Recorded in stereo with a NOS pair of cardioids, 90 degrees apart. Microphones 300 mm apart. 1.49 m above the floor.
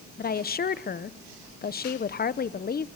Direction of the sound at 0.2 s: 30° left.